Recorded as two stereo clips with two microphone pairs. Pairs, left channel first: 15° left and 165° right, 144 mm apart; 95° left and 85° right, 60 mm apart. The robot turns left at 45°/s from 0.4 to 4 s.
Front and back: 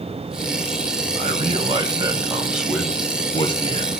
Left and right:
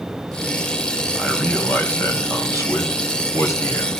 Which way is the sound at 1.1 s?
175° left.